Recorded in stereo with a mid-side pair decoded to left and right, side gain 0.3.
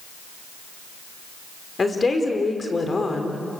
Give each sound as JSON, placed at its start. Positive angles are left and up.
{"t": 1.8, "sound": "a woman speaking", "azimuth_deg": 40, "distance_m": 5.0}